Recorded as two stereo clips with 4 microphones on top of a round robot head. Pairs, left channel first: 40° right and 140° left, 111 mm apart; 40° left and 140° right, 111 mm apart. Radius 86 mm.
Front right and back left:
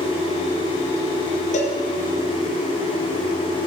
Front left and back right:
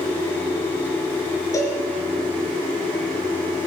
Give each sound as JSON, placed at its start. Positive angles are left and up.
{"t": 1.5, "sound": "a cowbell", "azimuth_deg": -25, "distance_m": 3.5}